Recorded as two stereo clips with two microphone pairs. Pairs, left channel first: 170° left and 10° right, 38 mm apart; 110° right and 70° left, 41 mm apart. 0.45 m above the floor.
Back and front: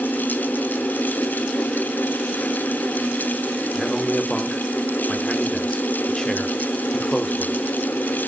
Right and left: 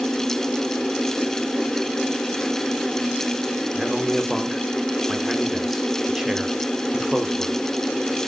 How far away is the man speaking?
About 1.1 m.